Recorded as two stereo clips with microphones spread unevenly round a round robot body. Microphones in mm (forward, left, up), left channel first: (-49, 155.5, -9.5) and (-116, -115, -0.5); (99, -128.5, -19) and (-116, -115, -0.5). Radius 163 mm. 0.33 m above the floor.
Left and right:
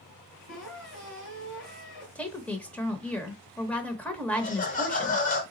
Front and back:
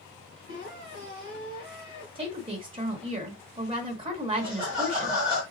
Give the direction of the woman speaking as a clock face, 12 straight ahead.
7 o'clock.